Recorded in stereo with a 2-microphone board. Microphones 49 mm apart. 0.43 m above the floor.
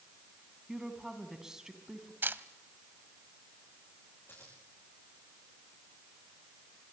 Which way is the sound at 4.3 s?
50° left (ahead or behind).